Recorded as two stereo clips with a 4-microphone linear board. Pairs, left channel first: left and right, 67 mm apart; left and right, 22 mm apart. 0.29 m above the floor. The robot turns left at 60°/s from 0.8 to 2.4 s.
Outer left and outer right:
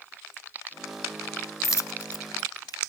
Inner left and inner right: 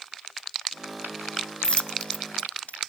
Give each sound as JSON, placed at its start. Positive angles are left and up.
{"t": 1.6, "sound": "a dropped coin", "side_deg": 50, "distance_m": 0.6}